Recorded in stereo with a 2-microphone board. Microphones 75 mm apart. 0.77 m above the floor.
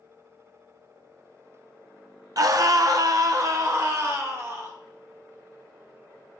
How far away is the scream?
About 0.7 m.